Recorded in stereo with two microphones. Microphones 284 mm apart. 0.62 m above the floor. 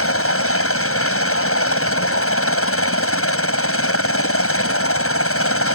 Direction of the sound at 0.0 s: 50° left (ahead or behind).